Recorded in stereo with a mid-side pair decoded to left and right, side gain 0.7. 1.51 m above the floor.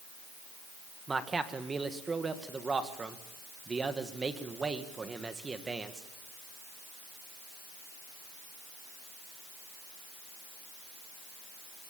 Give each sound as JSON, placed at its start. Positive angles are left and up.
{"t": 1.1, "sound": "a man speaking", "azimuth_deg": -20, "distance_m": 1.9}